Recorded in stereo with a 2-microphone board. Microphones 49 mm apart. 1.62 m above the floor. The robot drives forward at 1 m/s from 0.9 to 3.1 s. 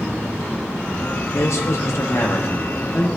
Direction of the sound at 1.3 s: 65° left (ahead or behind).